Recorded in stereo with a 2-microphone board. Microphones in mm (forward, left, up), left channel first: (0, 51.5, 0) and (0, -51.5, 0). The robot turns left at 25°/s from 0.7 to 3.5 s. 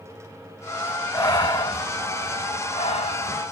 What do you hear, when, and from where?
1.1 s breathing: 35° left (ahead or behind), 1.5 m; by 3.4 s 85° left, 1.5 m